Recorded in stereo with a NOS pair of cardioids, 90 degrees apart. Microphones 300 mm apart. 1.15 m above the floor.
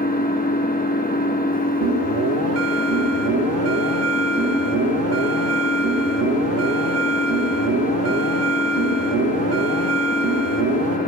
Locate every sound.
0.0 s an engine running: 30° left, 1.1 m
1.8 s an alarm: 55° right, 1.3 m